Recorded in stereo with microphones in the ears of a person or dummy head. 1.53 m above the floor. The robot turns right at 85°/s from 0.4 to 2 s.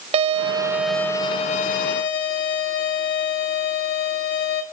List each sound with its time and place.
0.1 s a violin: 35° right, 1.6 m; by 4.6 s 105° left, 1.6 m